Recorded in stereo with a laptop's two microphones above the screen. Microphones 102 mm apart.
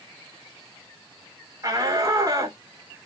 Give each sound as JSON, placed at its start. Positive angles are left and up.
{"t": 1.6, "sound": "a shout", "side_deg": -30, "distance_m": 3.5}